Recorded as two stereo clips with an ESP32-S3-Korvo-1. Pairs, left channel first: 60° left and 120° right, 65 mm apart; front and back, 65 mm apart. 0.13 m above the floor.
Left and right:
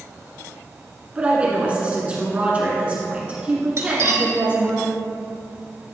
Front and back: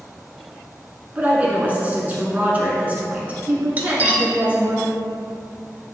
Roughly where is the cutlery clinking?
Behind right.